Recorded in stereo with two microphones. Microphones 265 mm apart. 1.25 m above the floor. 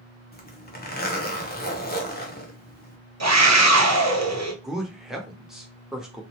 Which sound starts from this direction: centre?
A man speaking, at 4.6 s.